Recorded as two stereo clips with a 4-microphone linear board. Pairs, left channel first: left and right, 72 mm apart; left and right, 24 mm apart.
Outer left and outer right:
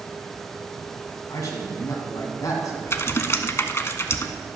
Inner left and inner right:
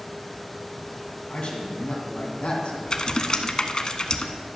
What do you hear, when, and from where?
1.3 s a man speaking: 55° left (ahead or behind), 2 m
2.9 s typing on a keyboard: 40° left (ahead or behind), 0.7 m